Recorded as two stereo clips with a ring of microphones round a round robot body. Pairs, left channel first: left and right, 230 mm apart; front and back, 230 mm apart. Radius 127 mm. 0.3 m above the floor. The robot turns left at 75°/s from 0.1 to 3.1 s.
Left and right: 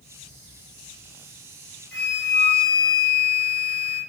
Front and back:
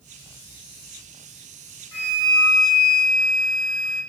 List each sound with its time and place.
1.9 s a flute: 10° left, 1.6 m; by 4.0 s 80° right, 1.6 m